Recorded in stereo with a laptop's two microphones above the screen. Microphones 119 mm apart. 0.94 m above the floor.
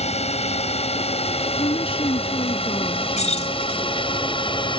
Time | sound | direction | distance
0.0 | a drone | 60° left (ahead or behind) | ?
1.6 | a woman speaking | 45° left (ahead or behind) | ?
3.2 | keys jangling | 70° left (ahead or behind) | ?